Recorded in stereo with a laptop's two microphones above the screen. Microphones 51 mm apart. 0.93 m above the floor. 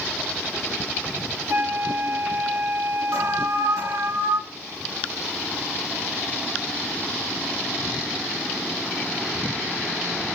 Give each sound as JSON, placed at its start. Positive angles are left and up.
{"t": 1.5, "sound": "a flute", "side_deg": -65, "distance_m": 1.8}
{"t": 3.1, "sound": "an alarm", "side_deg": -70, "distance_m": 6.5}